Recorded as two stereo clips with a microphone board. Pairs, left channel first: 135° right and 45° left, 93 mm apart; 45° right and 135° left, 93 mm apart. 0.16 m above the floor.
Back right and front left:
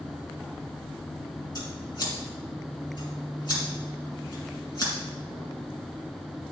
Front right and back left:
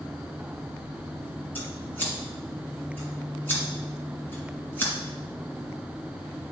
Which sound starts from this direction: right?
Scissors, at 1.6 s.